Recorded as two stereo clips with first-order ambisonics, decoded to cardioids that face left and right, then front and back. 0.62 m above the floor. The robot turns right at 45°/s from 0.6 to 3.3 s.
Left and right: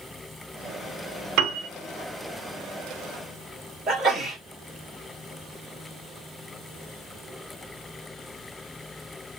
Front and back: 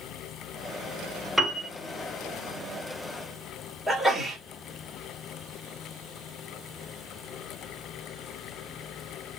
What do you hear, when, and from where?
1.4 s a piano: 100° right, 0.7 m; by 1.7 s 85° right, 0.7 m
3.9 s a sneeze: 75° right, 1.3 m